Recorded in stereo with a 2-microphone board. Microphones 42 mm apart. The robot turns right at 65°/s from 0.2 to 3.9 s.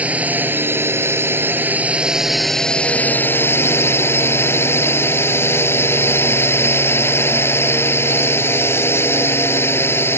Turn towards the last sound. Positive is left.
turn(degrees=95)